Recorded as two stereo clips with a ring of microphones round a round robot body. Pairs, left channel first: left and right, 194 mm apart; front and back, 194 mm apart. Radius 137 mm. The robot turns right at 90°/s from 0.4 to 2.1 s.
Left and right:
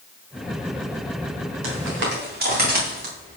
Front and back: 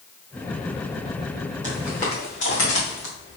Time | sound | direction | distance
1.6 | footsteps | 100° right | 3.5 m